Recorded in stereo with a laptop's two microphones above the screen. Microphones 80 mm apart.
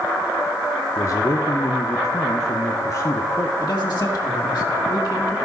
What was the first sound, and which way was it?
A man speaking, 40° left (ahead or behind).